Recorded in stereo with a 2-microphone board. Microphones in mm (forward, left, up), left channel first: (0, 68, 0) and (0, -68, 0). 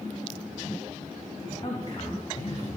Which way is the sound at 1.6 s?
40° left (ahead or behind).